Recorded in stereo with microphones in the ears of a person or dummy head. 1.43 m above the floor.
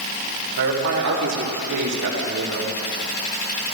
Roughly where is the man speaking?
Right.